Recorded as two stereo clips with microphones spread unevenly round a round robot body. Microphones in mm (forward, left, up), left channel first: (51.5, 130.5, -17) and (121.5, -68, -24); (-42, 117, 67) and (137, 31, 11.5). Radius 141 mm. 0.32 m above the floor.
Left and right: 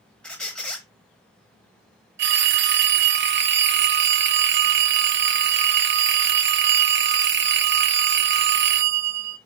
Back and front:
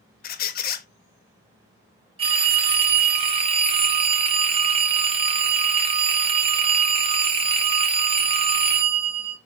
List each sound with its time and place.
0.2 s a squeak: 165° right, 0.5 m
2.2 s a phone ringing: 65° right, 0.7 m